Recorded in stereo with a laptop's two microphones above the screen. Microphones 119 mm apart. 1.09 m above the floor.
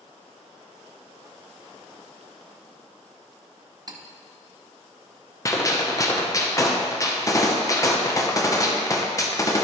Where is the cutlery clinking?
35° right (ahead or behind), 0.7 m.